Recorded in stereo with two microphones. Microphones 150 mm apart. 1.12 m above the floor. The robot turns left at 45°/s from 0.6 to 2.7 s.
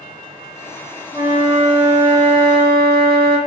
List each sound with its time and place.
1.1 s a flute: 20° right, 0.8 m; by 3.4 s 95° right, 0.8 m